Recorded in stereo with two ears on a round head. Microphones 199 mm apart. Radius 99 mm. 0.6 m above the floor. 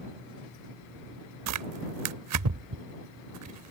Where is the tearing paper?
80° right.